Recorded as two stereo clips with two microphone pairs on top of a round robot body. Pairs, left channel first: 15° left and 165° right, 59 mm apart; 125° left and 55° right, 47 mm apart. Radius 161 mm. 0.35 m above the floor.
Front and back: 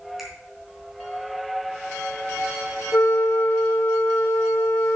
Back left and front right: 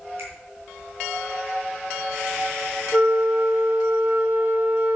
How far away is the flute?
About 0.9 m.